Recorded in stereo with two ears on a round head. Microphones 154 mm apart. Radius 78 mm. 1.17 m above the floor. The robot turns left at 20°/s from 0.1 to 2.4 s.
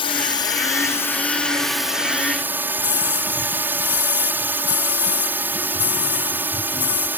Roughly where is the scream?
Centre.